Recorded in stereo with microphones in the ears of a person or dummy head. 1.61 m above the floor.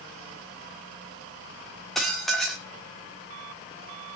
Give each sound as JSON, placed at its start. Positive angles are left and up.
{"t": 1.9, "sound": "dishes clattering", "side_deg": 5, "distance_m": 3.0}